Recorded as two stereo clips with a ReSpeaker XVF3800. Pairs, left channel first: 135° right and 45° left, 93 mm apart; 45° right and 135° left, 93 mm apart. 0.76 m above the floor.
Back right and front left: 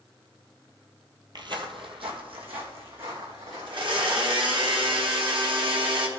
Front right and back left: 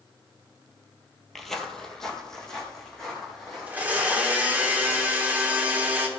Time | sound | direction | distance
1.4 | footsteps | 45° left | 1.1 m
3.7 | a blender | 65° left | 1.7 m